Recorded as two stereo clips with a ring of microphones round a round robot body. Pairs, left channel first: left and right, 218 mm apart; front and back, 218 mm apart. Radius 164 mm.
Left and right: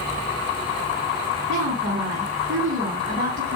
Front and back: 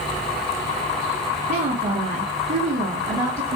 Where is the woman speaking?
135° right, 1.6 m.